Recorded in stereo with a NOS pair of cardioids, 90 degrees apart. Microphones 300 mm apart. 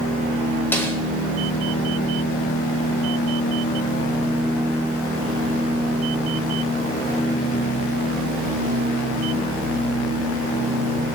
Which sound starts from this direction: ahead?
A snare drum, at 0.7 s.